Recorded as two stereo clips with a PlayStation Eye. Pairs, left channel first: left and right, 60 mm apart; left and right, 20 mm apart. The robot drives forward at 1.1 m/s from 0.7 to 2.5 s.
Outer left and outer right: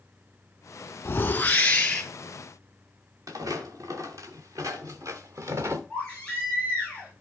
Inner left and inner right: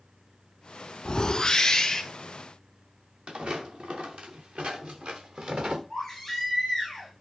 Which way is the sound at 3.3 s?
80° right.